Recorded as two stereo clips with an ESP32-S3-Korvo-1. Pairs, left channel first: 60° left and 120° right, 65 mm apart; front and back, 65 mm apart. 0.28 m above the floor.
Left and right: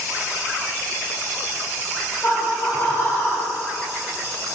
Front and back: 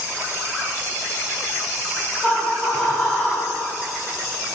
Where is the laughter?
70° left, 1.5 m.